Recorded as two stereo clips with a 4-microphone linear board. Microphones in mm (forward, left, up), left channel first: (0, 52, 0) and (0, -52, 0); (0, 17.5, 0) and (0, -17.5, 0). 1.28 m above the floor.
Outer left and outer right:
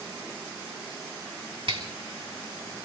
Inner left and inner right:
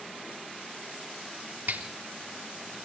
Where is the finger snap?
55° right (ahead or behind), 3.5 m.